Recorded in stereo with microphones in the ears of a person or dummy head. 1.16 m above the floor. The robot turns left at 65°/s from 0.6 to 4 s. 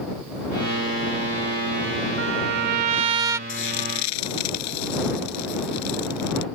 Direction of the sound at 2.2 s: 85° right.